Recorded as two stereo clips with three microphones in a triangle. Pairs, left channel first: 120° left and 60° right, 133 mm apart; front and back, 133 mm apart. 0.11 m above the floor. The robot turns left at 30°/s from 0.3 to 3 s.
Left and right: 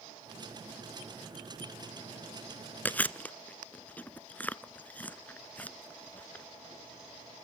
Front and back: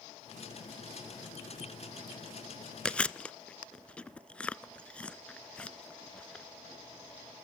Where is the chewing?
70° left, 0.5 m; by 6.5 s 65° left, 0.5 m.